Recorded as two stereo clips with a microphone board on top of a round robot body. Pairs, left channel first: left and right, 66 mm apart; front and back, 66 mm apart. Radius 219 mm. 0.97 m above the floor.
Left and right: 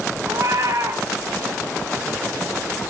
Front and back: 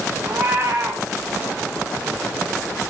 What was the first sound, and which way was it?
A cat meowing, 125° right.